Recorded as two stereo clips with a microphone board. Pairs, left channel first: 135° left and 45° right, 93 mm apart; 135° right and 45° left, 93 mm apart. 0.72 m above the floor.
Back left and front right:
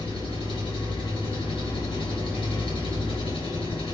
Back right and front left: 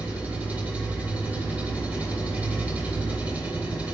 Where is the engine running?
120° left, 3 m.